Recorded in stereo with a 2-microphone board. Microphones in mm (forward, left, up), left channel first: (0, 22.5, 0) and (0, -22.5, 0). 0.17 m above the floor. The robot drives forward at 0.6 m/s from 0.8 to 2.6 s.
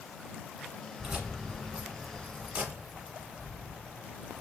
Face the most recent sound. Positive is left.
turn(degrees=-25)  # may be behind; listen again after turning